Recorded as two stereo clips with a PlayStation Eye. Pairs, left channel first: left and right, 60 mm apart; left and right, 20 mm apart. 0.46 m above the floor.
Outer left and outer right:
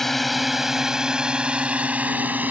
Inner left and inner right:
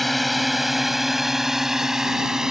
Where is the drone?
5° left (ahead or behind); by 2.5 s 30° right (ahead or behind).